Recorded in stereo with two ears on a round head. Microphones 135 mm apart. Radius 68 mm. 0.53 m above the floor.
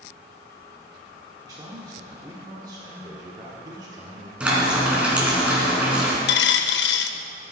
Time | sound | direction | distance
1.4 | a man speaking | 25° right (ahead or behind) | 1.4 m
4.4 | frying | 10° right (ahead or behind) | 2.5 m
6.3 | a dropped coin | 90° left | 0.6 m